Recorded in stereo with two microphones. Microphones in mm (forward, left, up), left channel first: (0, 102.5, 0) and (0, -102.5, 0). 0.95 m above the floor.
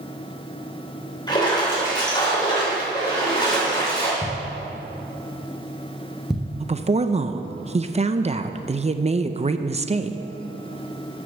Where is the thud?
Centre (ahead or behind), 2.5 m.